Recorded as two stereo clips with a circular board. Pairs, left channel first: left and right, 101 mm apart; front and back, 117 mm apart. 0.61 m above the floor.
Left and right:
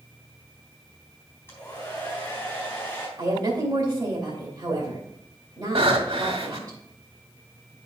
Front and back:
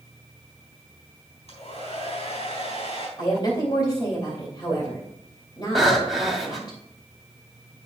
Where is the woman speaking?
40° right, 2.5 m.